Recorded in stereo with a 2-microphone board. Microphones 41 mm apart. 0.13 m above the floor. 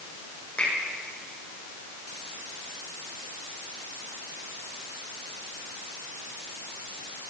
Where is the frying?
No frying in this recording.